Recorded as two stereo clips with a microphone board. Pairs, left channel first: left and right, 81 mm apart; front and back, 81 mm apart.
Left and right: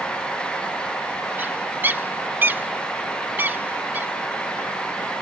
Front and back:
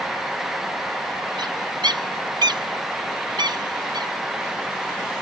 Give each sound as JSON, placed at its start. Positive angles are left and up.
{"t": 1.4, "sound": "a bird", "azimuth_deg": -155}